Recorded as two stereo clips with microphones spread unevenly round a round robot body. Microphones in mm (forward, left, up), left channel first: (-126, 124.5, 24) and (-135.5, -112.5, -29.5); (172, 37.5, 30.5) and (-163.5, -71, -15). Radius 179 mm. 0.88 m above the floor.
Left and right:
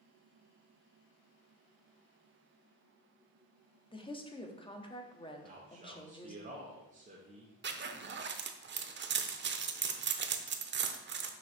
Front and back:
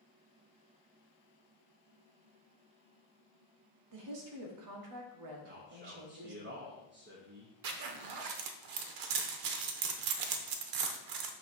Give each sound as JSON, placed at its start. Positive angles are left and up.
{"t": 3.9, "sound": "a woman speaking", "azimuth_deg": 160, "distance_m": 1.3}
{"t": 5.4, "sound": "a man speaking", "azimuth_deg": -120, "distance_m": 1.0}
{"t": 7.6, "sound": "a zipper", "azimuth_deg": -140, "distance_m": 0.7}